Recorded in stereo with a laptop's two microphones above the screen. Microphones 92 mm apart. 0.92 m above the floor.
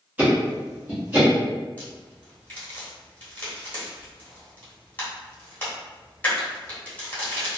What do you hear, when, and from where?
0.2 s ticking: 20° right (ahead or behind), 1.1 m
1.8 s a crack: 20° left (ahead or behind), 1.3 m